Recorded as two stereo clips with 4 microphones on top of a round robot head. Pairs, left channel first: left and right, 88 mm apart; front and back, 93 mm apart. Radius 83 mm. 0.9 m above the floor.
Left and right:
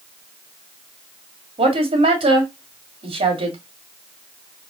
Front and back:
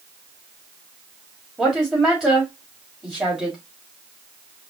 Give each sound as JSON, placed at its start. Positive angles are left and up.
{"t": 1.6, "sound": "a woman speaking", "azimuth_deg": -95, "distance_m": 2.5}